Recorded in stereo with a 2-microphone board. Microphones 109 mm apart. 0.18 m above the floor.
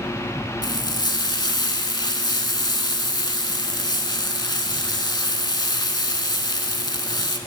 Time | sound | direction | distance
0.6 | frying | 45° left (ahead or behind) | 0.6 m